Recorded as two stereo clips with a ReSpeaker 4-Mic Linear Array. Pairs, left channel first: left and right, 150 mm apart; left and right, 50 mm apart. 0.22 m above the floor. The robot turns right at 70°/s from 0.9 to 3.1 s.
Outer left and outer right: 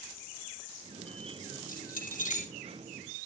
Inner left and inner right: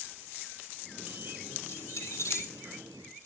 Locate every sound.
1.7 s keys jangling: 75° left (ahead or behind), 4.5 m; by 2.5 s 45° left (ahead or behind), 4.5 m